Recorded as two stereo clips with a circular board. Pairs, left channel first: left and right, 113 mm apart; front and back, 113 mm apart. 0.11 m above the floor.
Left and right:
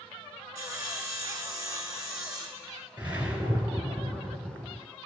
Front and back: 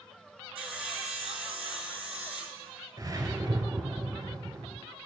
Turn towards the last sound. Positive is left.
turn(degrees=-150)